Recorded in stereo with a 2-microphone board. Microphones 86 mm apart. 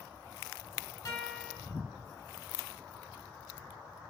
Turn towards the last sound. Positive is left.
turn(degrees=35)  # may be behind; listen again after turning